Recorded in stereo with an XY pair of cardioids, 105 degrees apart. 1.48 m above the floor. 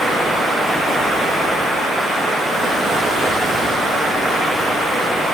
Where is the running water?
30° right, 0.8 m.